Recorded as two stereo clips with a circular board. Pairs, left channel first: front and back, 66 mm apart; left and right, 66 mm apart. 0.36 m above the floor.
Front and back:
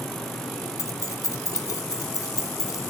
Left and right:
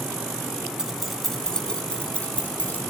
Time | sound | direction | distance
0.8 | keys jangling | 10° right | 1.0 m